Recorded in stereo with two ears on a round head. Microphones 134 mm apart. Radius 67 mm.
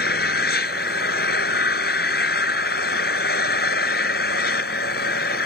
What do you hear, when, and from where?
0.0 s an engine running: 70° left (ahead or behind)